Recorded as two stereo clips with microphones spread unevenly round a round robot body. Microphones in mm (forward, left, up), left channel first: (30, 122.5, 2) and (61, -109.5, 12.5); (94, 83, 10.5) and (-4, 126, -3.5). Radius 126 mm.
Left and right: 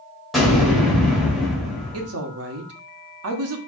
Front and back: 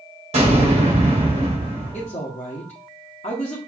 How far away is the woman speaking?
About 1.4 m.